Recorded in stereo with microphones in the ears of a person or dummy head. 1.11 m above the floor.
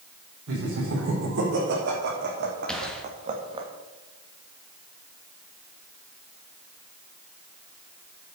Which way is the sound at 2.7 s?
10° left (ahead or behind).